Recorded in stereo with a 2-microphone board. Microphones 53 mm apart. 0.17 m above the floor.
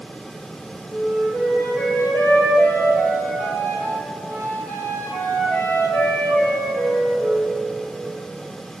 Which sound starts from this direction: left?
A flute, at 0.9 s.